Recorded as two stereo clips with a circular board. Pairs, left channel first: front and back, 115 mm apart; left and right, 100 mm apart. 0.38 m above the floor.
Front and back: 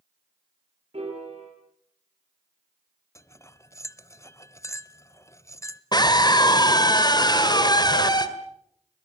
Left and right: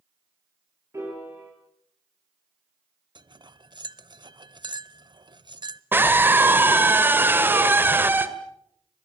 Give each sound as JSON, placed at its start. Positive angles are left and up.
{"t": 0.9, "sound": "a piano", "azimuth_deg": -150, "distance_m": 7.0}
{"t": 3.1, "sound": "cutlery clinking", "azimuth_deg": -60, "distance_m": 0.7}
{"t": 5.9, "sound": "a scream", "azimuth_deg": -30, "distance_m": 1.9}